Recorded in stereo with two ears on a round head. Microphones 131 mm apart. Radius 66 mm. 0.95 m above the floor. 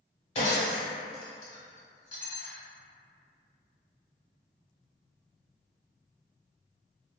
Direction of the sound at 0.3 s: 45° left (ahead or behind).